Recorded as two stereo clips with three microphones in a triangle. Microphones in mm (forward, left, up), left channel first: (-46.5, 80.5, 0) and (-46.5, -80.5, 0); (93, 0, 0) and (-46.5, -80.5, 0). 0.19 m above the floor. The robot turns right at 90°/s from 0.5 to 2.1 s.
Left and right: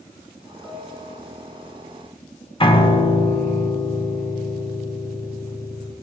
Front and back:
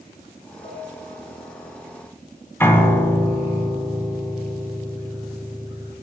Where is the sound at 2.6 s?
95° left, 0.7 m.